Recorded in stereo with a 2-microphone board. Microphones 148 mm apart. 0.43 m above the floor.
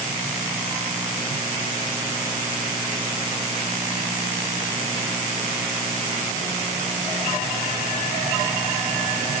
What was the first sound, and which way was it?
Only background noise.